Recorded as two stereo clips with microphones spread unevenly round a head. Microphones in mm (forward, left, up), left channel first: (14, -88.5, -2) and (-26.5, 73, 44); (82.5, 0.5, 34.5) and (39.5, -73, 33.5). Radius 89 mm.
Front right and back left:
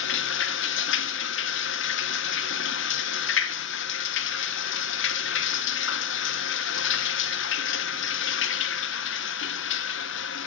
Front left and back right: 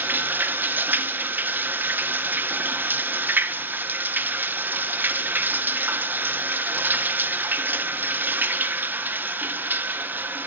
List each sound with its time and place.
0.0 s running water: 50° right, 0.9 m